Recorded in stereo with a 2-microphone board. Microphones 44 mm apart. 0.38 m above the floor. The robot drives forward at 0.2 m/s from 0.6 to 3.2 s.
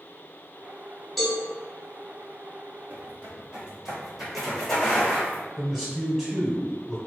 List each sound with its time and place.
1.2 s a cowbell: centre (ahead or behind), 1.0 m
2.9 s footsteps: 45° right (ahead or behind), 1.1 m; by 5.4 s 25° left (ahead or behind), 1.6 m
5.6 s a man speaking: 5° right (ahead or behind), 0.9 m